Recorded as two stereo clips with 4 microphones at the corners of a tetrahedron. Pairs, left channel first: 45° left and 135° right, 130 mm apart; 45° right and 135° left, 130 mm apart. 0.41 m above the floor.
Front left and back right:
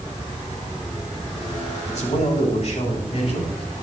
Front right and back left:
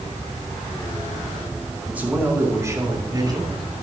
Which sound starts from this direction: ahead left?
A man speaking, at 1.9 s.